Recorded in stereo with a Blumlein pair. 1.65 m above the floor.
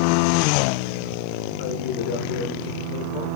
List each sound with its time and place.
1.6 s a man speaking: 50° left, 1.7 m